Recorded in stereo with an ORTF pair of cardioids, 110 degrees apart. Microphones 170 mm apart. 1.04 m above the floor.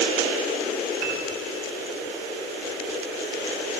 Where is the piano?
65° right, 5 m.